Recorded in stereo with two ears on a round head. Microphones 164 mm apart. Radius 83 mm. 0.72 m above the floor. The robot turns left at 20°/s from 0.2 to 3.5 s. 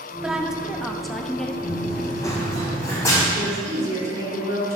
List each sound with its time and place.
0.2 s a woman speaking: 5° right (ahead or behind), 0.7 m; by 1.5 s 5° left (ahead or behind), 0.7 m
1.6 s running footsteps: 15° left (ahead or behind), 1.8 m; by 3.2 s 20° left (ahead or behind), 2 m
3.3 s a woman speaking: 15° right (ahead or behind), 2.5 m